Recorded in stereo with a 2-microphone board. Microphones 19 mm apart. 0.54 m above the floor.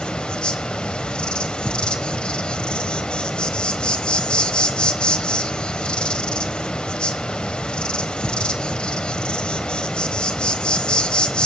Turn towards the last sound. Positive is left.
turn(degrees=70)  # may be behind; listen again after turning